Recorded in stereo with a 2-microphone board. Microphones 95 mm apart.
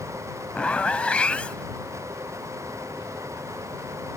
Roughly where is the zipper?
Centre.